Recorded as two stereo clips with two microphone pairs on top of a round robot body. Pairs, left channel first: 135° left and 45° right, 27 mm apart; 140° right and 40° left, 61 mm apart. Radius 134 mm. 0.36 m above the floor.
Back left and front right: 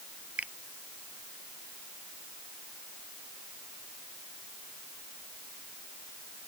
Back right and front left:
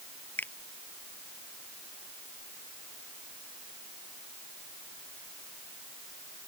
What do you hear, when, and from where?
0.4 s a finger snap: 80° right